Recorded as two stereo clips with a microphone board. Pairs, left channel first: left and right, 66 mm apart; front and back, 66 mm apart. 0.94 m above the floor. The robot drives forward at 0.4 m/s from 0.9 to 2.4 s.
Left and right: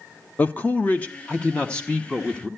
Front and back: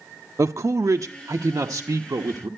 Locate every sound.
0.4 s a man speaking: 150° left, 0.5 m; by 2.5 s 165° left, 1.1 m